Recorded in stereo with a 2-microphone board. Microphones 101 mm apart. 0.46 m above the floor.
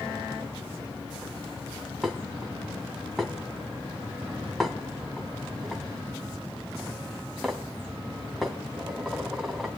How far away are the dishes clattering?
About 2.5 m.